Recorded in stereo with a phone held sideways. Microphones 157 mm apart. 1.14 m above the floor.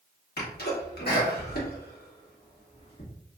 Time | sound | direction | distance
0.4 | a sneeze | 75° left (ahead or behind) | 1.6 m